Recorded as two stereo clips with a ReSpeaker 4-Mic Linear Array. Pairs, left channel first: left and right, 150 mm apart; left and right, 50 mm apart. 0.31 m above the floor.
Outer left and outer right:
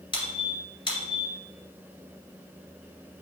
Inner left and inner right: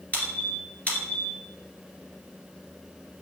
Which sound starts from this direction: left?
A squeak, at 0.1 s.